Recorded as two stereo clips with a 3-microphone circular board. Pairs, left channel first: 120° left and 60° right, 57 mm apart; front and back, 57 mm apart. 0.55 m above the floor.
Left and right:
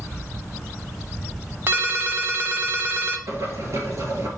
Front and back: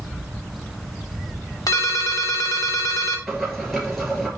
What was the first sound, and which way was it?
A ringtone, 10° right.